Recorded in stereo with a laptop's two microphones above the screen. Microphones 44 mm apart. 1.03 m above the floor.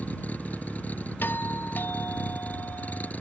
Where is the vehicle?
40° left (ahead or behind).